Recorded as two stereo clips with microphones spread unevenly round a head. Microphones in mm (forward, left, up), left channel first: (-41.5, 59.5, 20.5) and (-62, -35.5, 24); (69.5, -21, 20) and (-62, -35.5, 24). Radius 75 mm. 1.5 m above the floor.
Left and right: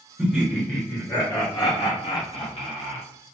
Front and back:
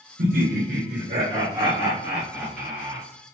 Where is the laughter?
170° left, 0.9 m; by 3.0 s 90° left, 1.4 m.